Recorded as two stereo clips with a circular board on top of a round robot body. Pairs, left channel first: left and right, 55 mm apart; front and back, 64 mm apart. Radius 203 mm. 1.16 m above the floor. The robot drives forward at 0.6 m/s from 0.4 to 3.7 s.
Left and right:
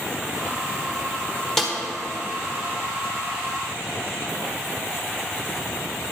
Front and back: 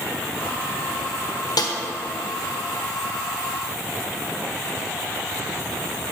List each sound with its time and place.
1.6 s a snare drum: 5° left, 1.4 m; by 1.7 s 10° left, 1.3 m